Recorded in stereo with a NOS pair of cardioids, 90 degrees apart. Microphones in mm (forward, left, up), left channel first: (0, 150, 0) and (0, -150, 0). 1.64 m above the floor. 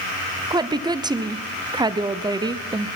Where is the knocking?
No knocking in this recording.